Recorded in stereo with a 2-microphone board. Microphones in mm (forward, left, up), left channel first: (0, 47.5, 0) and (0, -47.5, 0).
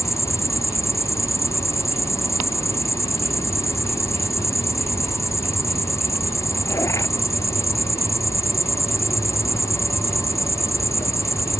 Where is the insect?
30° left (ahead or behind).